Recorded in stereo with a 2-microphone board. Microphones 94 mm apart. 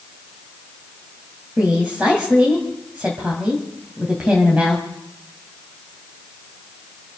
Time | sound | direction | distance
1.6 | a woman speaking | 10° right (ahead or behind) | 2.5 m